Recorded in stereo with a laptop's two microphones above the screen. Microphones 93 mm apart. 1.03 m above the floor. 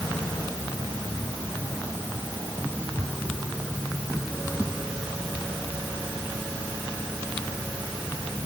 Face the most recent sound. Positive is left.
No sound to turn to.